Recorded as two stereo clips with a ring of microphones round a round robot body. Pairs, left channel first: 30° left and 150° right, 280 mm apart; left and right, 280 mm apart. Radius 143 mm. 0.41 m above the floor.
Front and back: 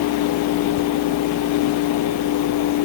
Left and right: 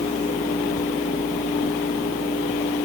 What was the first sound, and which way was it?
Only background noise.